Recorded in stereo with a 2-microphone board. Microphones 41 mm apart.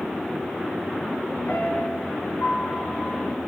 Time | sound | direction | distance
1.5 | a piano | 65° left (ahead or behind) | 3.5 m